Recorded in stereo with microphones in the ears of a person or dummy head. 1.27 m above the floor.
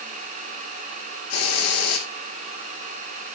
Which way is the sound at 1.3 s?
80° left.